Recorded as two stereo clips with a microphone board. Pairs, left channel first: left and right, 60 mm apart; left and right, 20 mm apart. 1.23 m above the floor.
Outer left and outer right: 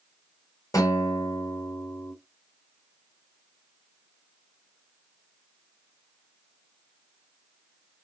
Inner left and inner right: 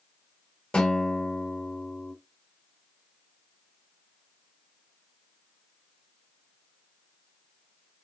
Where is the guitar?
60° left (ahead or behind), 4.5 m.